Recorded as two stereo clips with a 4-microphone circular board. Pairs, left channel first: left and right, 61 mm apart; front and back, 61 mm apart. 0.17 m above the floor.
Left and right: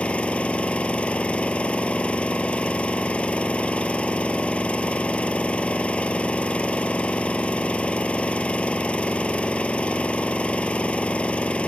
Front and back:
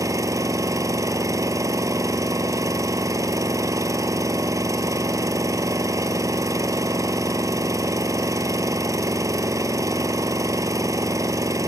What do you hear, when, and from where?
0.0 s an engine running: 160° left, 1.2 m